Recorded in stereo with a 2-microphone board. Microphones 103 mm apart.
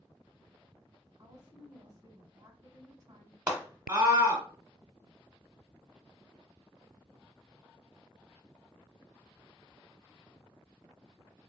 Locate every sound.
1.2 s a woman speaking: 35° right (ahead or behind), 1.3 m
3.5 s a scream: 15° right (ahead or behind), 1.0 m